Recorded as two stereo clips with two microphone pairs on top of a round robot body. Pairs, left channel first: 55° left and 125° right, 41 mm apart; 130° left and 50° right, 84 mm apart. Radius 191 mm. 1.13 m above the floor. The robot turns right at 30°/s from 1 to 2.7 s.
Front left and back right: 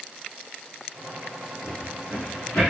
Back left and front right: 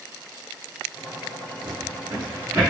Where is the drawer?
5° right, 1.3 m; by 2.6 s 20° left, 1.3 m.